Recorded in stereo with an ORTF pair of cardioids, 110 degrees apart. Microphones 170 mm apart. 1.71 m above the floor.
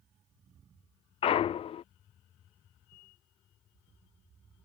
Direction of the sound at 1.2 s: 35° left.